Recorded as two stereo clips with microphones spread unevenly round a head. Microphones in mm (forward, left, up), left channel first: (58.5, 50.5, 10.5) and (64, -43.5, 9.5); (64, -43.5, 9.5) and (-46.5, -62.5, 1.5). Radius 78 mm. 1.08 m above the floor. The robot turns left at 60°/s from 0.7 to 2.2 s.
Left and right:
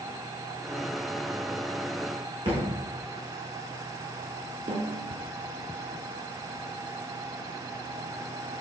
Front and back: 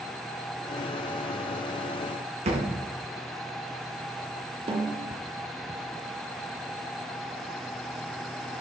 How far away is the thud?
About 3.5 m.